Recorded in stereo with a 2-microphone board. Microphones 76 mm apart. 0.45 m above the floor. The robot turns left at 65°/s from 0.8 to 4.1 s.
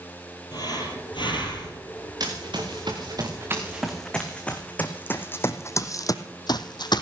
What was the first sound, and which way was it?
Breathing, 120° left.